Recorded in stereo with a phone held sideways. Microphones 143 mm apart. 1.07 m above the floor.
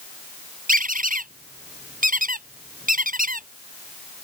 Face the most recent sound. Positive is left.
turn(degrees=-75)  # may be behind; listen again after turning